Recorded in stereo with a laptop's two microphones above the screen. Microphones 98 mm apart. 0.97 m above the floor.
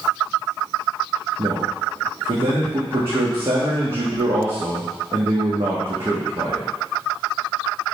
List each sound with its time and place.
1.4 s a man speaking: 65° right (ahead or behind), 1.4 m